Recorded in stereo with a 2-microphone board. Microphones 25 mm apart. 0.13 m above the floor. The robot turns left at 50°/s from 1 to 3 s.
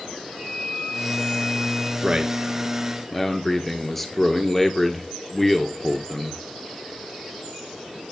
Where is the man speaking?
140° right, 2 m; by 6.4 s 170° left, 2 m.